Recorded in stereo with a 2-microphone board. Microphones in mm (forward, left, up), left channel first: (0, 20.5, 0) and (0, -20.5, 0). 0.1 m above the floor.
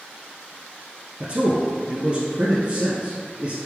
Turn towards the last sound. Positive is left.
turn(degrees=-30)  # may be behind; listen again after turning